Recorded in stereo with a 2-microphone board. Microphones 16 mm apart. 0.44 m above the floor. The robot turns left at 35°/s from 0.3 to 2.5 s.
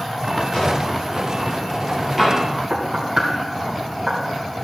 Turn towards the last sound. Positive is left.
turn(degrees=-60)  # may be behind; listen again after turning